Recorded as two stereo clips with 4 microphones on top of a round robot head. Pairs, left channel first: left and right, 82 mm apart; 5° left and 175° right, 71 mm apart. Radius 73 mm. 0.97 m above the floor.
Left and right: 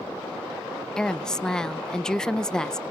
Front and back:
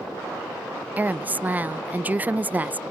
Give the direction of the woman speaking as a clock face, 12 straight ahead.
7 o'clock.